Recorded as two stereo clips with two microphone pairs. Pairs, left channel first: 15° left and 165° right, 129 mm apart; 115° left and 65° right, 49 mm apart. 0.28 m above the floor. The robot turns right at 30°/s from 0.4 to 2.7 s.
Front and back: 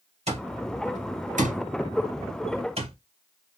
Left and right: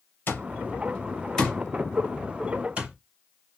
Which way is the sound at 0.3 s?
160° left.